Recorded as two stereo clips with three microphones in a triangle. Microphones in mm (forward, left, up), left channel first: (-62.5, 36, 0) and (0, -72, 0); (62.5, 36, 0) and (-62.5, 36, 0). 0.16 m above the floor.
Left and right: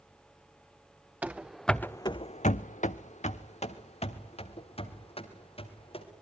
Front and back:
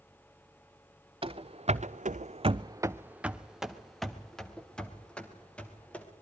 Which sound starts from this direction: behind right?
Running footsteps, at 1.2 s.